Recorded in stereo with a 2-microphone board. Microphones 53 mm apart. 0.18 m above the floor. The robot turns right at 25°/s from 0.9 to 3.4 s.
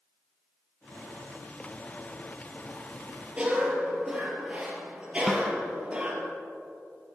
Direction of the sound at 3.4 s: 25° right (ahead or behind).